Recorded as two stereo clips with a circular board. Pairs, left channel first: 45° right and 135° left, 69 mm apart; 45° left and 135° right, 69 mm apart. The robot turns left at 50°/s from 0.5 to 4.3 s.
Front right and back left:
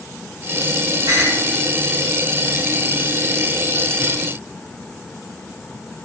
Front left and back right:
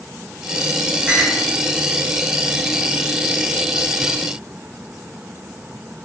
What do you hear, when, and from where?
1.1 s a clink: 155° left, 1.5 m; by 1.4 s 140° left, 1.5 m